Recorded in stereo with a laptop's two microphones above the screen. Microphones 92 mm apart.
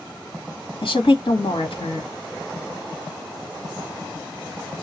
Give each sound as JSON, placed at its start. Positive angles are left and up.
{"t": 0.8, "sound": "a woman speaking", "side_deg": 70, "distance_m": 1.7}